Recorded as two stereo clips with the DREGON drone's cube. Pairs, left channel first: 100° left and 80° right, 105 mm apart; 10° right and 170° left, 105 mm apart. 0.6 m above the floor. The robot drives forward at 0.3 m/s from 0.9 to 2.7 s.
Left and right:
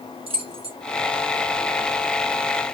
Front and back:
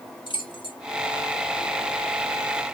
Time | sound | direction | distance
0.3 | keys jangling | 50° right | 1.3 m